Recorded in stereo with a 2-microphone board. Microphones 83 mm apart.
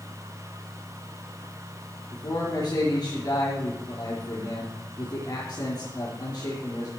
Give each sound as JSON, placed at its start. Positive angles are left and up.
{"t": 2.1, "sound": "a man speaking", "side_deg": 55, "distance_m": 4.0}